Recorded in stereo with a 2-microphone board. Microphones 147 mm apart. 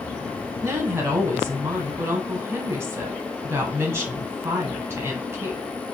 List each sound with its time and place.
0.6 s a woman speaking: 15° right (ahead or behind), 1.1 m